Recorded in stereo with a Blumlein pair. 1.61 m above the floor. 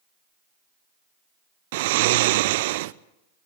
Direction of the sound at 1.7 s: 50° right.